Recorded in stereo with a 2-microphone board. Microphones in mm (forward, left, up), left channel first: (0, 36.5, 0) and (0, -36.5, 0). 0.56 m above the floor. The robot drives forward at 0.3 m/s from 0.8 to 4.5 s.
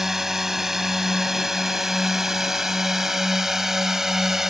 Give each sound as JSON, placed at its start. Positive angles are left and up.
{"t": 0.0, "sound": "a drone", "side_deg": -5}